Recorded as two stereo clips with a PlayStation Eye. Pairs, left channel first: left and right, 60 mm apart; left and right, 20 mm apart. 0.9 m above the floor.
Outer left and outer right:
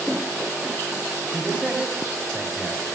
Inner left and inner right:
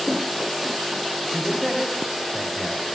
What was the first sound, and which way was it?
A man speaking, 20° right (ahead or behind).